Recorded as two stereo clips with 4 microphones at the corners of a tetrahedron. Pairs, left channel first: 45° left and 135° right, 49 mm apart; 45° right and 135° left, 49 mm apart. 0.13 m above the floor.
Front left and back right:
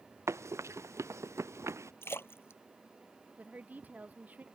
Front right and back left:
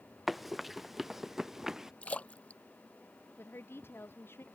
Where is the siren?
No siren in this recording.